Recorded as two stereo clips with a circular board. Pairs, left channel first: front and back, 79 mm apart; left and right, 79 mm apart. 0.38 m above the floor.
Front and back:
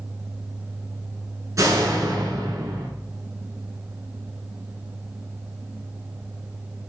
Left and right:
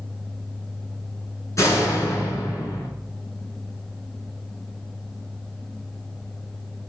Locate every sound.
1.6 s a door slam: 135° left, 4.5 m